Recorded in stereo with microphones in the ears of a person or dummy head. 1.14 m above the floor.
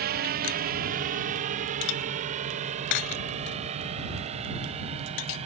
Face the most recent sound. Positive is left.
turn(degrees=-35)  # may be behind; listen again after turning